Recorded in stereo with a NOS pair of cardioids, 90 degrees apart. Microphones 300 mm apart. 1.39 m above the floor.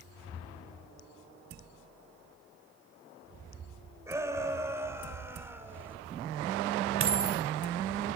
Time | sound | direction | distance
4.1 | a shout | 10° right | 6 m
7.0 | a dropped coin | 45° right | 2.5 m